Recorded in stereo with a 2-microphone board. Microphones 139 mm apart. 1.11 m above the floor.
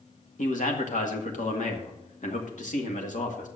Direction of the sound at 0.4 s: 65° left (ahead or behind).